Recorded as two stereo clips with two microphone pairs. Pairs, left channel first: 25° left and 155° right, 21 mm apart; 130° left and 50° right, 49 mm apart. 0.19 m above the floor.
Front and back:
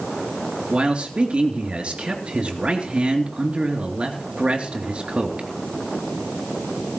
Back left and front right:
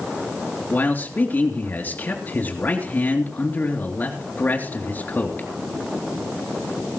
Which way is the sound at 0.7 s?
Straight behind.